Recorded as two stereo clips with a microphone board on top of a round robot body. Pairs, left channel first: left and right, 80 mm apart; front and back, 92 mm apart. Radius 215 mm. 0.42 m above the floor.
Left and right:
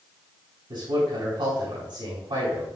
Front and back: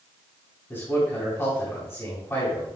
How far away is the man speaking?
About 4.5 m.